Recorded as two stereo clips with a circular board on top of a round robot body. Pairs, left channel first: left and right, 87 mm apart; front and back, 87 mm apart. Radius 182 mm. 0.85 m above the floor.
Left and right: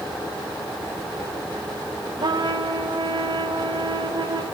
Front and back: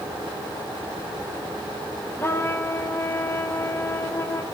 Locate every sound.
2.2 s a trumpet: 60° right, 2.5 m